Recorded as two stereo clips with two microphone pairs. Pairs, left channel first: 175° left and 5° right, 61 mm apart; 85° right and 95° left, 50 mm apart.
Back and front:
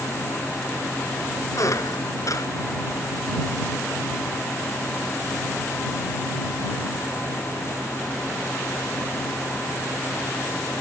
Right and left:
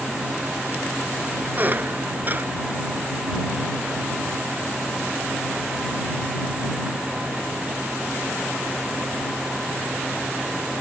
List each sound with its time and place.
1.6 s a squeak: 150° left